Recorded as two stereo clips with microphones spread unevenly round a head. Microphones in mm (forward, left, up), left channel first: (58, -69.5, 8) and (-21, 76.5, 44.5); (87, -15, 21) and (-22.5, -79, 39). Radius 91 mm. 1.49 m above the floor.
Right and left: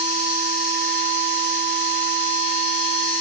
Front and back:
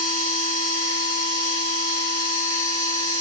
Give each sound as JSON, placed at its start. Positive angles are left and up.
{"t": 0.0, "sound": "a machine running", "azimuth_deg": 80, "distance_m": 0.9}